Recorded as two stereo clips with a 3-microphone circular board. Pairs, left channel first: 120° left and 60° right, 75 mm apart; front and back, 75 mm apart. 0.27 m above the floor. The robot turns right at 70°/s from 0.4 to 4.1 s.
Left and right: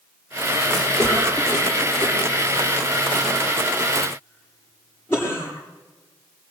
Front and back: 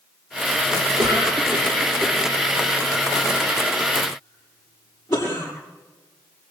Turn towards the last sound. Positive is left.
turn(degrees=60)